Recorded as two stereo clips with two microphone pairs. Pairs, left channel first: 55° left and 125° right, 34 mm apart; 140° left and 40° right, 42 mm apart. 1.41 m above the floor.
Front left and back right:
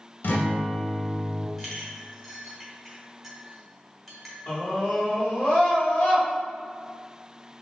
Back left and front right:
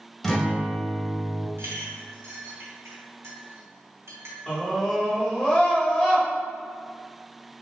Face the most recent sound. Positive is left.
turn(degrees=60)